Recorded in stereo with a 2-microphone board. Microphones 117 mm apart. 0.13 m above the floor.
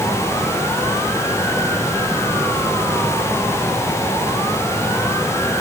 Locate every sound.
Only background noise.